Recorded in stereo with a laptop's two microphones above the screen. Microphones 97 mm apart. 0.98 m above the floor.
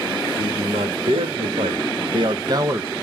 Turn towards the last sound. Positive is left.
turn(degrees=-25)  # may be behind; listen again after turning